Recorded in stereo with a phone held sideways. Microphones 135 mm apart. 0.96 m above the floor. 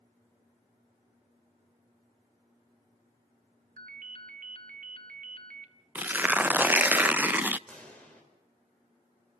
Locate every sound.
3.8 s a ringtone: 75° right (ahead or behind), 1.6 m
6.0 s tearing paper: 10° right (ahead or behind), 0.5 m
7.7 s a pop: 10° left (ahead or behind), 5 m